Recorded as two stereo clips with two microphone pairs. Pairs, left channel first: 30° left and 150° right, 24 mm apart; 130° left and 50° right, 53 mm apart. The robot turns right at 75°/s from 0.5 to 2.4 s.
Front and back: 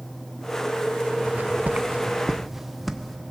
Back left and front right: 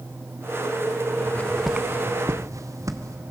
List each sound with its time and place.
1.3 s footsteps: straight behind, 1.2 m; by 3.2 s 60° right, 1.9 m